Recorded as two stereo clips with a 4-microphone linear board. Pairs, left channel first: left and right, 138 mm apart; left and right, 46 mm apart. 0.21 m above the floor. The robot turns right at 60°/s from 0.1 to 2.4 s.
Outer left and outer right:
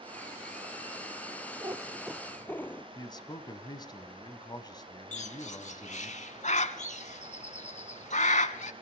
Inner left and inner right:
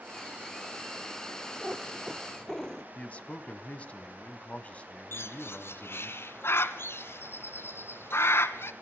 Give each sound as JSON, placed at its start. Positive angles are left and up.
{"t": 1.6, "sound": "a cat meowing", "azimuth_deg": -35, "distance_m": 0.8}
{"t": 3.0, "sound": "a man speaking", "side_deg": 30, "distance_m": 1.2}
{"t": 5.1, "sound": "a bird", "side_deg": 60, "distance_m": 0.8}